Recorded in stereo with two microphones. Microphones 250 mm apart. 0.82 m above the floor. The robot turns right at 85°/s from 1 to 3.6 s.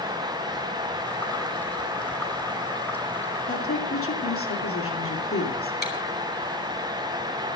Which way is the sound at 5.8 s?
40° left (ahead or behind).